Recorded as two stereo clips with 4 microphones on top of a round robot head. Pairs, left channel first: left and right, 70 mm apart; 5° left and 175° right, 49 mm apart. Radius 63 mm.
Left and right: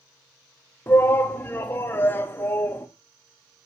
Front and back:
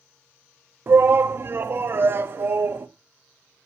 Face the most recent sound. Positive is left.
turn(degrees=150)